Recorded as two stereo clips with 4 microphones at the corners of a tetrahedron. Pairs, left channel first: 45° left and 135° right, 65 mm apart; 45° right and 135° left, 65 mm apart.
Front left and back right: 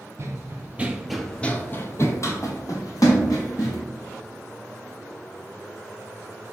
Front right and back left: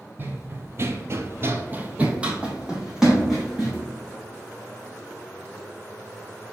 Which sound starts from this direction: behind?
Running footsteps, at 0.2 s.